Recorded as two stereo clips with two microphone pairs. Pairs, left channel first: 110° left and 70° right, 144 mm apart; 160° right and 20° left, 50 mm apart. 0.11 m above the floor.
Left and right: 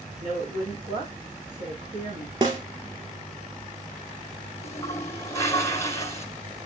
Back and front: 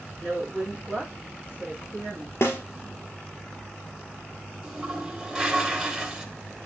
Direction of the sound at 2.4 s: 125° right.